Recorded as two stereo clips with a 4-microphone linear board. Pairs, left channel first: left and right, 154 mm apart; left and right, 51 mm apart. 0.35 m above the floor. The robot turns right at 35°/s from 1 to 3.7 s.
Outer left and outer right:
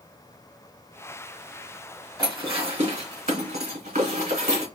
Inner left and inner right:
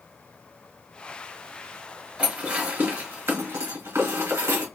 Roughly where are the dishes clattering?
Right.